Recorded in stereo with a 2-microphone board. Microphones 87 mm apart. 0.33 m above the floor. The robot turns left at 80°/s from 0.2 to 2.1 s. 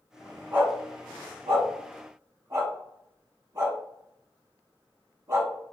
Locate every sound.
0.5 s a dog barking: 15° right (ahead or behind), 0.9 m; by 5.5 s 35° right (ahead or behind), 0.9 m